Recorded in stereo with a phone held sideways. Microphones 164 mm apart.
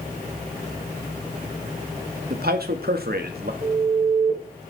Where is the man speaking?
75° right (ahead or behind), 1.9 m.